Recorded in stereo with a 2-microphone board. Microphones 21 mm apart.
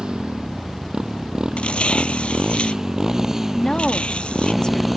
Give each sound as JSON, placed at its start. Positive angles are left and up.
{"t": 0.0, "sound": "a motorcycle", "side_deg": -45}
{"t": 1.6, "sound": "tearing paper", "side_deg": 65}
{"t": 3.5, "sound": "a woman speaking", "side_deg": 45}